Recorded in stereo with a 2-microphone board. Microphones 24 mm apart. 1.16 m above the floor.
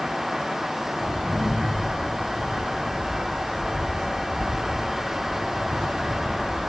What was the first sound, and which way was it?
Footsteps, 50° left (ahead or behind).